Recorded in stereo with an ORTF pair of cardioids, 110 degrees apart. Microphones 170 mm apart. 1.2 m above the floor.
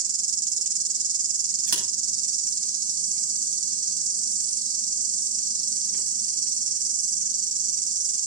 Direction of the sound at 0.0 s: 55° right.